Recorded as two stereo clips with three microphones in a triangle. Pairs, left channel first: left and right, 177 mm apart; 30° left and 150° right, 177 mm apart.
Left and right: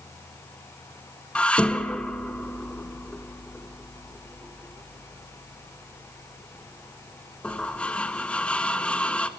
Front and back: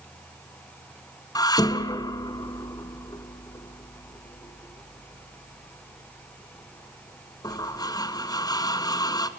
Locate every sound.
1.4 s dishes clattering: 15° left, 0.9 m